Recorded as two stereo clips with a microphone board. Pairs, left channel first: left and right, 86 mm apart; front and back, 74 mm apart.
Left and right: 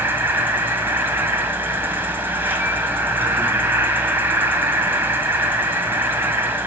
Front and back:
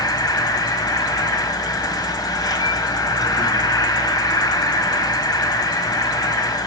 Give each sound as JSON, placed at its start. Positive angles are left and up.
{"t": 0.0, "sound": "an insect", "azimuth_deg": -25, "distance_m": 1.5}